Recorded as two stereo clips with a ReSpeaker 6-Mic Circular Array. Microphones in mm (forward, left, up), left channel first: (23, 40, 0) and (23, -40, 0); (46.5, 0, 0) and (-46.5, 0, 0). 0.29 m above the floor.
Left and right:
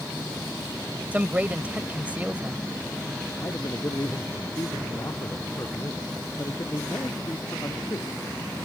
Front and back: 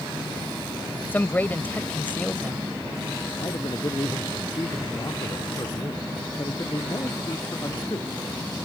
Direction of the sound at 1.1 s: 45° right.